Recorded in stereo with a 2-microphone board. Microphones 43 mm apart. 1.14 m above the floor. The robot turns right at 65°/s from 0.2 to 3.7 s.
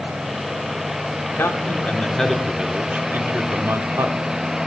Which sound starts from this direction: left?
A man speaking, at 1.2 s.